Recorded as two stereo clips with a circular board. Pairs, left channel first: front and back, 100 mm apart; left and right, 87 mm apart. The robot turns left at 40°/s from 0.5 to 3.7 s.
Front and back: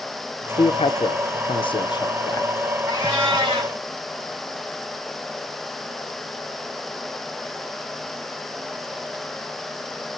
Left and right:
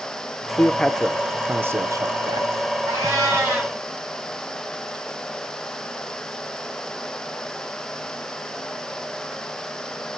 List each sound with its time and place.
0.6 s a man speaking: 15° left, 0.5 m; by 2.5 s 60° right, 0.5 m
2.9 s a cat meowing: 135° right, 3.5 m; by 3.7 s 170° right, 3.5 m